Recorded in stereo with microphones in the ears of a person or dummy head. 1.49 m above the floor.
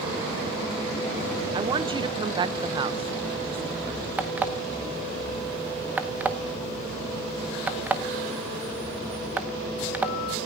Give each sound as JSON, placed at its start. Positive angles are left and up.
{"t": 1.5, "sound": "a woman speaking", "side_deg": -25, "distance_m": 0.9}
{"t": 4.2, "sound": "an alarm clock", "side_deg": -5, "distance_m": 0.8}